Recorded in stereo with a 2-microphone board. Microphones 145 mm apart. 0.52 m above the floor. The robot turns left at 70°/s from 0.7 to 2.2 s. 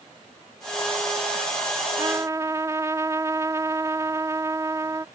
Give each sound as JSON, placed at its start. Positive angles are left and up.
{"t": 2.0, "sound": "a trumpet", "side_deg": -20}